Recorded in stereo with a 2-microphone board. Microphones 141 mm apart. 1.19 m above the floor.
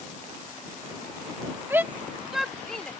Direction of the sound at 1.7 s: 15° right (ahead or behind).